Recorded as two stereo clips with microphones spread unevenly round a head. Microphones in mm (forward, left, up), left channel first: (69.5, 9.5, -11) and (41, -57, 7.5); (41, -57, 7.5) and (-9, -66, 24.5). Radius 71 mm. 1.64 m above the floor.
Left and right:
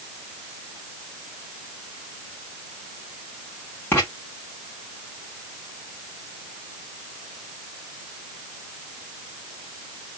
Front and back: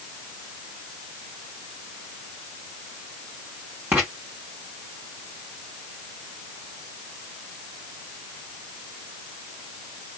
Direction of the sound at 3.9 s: 145° left.